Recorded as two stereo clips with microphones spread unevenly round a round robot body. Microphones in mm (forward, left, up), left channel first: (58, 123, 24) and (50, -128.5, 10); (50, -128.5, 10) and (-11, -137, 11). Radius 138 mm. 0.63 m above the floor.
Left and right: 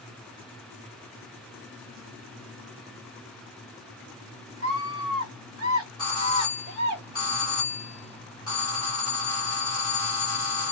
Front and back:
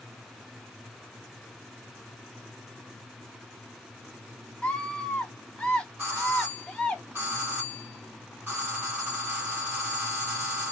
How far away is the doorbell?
About 1.9 m.